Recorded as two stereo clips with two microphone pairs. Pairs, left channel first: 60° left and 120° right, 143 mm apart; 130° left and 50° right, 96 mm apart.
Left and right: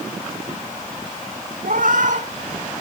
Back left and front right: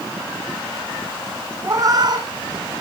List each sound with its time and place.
1.6 s a cat meowing: 105° right, 1.3 m; by 2.6 s 80° right, 1.6 m